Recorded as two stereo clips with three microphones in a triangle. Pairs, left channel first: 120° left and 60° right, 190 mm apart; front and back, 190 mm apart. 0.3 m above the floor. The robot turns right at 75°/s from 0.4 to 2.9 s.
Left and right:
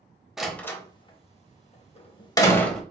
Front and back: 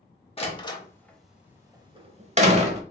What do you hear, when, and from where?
0.4 s a door slam: 25° left, 0.7 m; by 2.8 s 150° right, 0.7 m